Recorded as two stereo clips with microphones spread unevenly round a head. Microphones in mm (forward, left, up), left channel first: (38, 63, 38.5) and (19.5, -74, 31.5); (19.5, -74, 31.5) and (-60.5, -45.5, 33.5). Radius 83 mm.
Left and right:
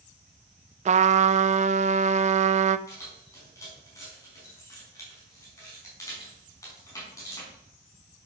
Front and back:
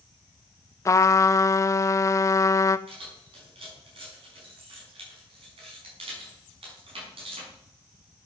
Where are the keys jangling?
155° left, 5 m.